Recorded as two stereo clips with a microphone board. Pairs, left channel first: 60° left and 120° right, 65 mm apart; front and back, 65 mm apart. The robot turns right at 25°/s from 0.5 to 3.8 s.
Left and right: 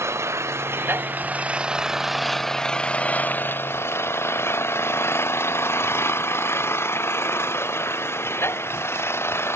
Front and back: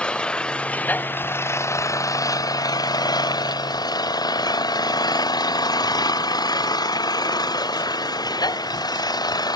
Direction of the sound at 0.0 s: 75° right.